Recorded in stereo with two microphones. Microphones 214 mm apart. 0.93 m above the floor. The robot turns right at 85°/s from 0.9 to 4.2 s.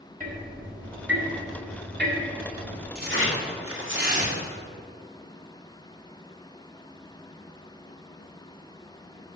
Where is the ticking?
145° right, 1.4 m; by 2.9 s 25° left, 1.4 m.